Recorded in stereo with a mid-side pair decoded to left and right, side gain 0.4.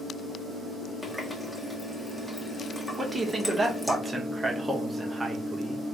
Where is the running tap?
10° left, 1.5 m.